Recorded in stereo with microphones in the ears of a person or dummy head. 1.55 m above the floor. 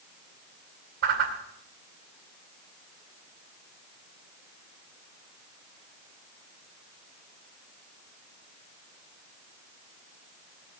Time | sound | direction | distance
1.0 | a whoosh | 60° right (ahead or behind) | 2 m